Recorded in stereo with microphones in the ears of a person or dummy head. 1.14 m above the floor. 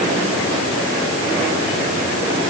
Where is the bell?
I don't hear a bell.